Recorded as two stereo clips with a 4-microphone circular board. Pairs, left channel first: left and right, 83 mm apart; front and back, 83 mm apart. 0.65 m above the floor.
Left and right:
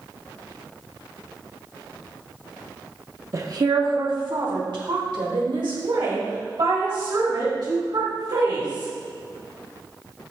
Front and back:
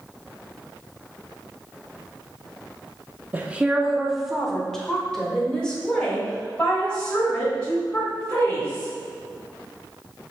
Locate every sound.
3.3 s a woman speaking: 125° right, 0.8 m; by 8.9 s 75° right, 6 m